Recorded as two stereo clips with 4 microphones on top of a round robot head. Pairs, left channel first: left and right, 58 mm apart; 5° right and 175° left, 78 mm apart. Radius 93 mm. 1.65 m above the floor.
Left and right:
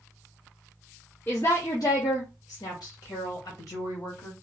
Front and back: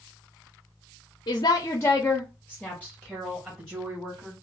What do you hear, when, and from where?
1.3 s a woman speaking: 15° left, 0.6 m; by 4.3 s 115° left, 2 m